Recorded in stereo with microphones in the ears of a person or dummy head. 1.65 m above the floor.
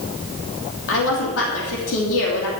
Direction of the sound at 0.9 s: 75° left (ahead or behind).